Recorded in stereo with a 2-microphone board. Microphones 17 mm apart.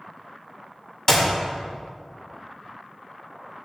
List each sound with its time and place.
1.1 s a clap: 40° left (ahead or behind), 1.8 m